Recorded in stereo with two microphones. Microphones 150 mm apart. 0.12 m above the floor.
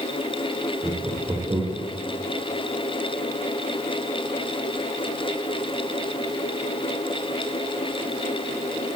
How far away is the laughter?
About 8 m.